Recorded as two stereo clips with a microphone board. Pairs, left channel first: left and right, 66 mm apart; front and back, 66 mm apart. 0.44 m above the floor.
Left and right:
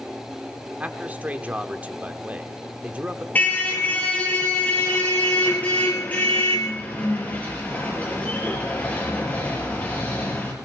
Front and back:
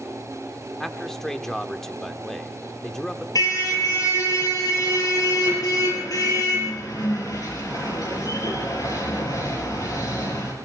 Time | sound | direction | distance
0.8 | a man speaking | 75° right | 0.9 m
3.4 | a car horn | 25° left | 5 m